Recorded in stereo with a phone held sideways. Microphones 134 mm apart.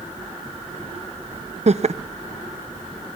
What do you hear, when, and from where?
1.7 s laughter: 55° right (ahead or behind), 0.6 m